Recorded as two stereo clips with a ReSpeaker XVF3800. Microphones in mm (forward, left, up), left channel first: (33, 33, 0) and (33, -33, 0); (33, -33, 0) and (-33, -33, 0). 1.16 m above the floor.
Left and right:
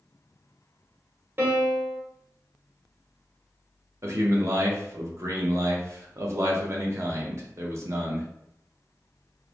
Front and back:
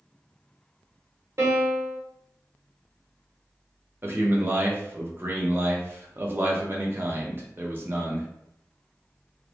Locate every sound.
1.4 s a piano: 145° right, 1.0 m
4.0 s a man speaking: 125° right, 0.7 m